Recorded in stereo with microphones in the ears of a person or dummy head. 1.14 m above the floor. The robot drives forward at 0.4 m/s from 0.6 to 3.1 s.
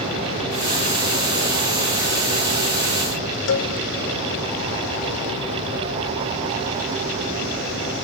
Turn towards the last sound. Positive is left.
turn(degrees=70)  # may be behind; listen again after turning